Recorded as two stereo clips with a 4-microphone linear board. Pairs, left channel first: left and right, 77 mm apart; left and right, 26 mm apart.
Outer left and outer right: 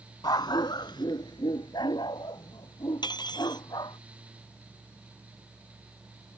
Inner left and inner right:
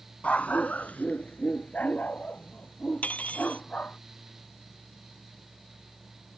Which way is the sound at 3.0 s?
70° left (ahead or behind).